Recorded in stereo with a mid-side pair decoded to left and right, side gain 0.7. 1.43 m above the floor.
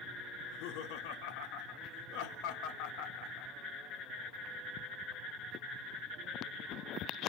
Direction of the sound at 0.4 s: 70° left.